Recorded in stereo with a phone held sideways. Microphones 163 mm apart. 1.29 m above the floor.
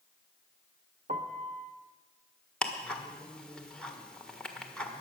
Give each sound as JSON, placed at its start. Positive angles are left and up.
{"t": 1.1, "sound": "a piano", "side_deg": -45, "distance_m": 0.9}
{"t": 2.6, "sound": "ticking", "side_deg": 5, "distance_m": 1.4}